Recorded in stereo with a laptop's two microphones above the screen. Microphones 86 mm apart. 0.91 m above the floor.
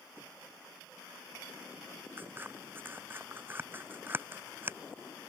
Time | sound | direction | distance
2.2 | scissors | 25° right (ahead or behind) | ?